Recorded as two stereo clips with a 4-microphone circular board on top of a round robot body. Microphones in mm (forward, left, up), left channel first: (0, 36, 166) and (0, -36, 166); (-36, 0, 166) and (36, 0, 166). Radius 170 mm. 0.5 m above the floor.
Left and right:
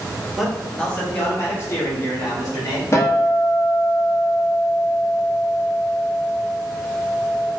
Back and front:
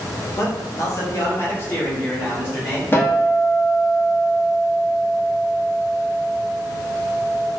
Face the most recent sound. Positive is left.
turn(degrees=130)